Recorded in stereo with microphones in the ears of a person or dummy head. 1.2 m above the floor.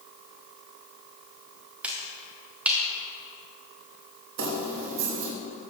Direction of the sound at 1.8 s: 5° right (ahead or behind).